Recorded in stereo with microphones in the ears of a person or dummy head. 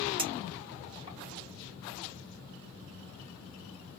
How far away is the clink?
About 1.2 m.